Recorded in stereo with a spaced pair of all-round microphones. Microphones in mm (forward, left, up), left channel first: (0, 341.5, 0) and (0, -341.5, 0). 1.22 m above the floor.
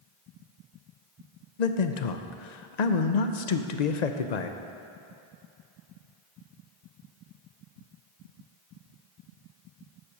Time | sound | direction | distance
1.6 | a man speaking | 75° left (ahead or behind) | 0.7 m